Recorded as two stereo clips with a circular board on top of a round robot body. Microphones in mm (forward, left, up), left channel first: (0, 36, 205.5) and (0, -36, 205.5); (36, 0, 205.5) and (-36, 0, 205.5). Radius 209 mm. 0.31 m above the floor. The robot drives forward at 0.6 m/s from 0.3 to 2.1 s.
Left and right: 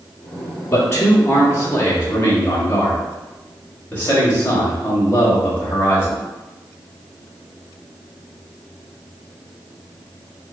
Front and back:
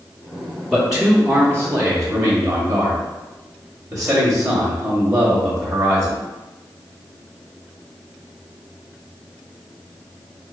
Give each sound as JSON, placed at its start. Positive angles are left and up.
{"t": 0.7, "sound": "a man speaking", "azimuth_deg": 95, "distance_m": 1.2}